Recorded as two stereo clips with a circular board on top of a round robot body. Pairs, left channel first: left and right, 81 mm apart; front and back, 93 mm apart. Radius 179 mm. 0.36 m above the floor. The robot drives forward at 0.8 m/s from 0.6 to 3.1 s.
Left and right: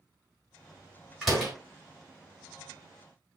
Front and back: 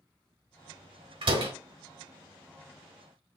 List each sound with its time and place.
1.2 s a door slam: straight behind, 3 m